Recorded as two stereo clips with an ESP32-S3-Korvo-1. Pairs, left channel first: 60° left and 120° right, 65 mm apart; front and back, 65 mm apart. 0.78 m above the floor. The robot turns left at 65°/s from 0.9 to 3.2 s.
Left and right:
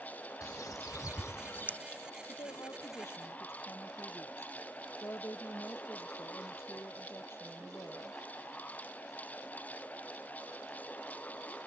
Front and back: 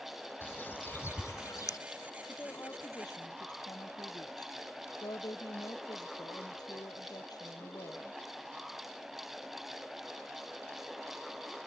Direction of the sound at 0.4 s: 55° left.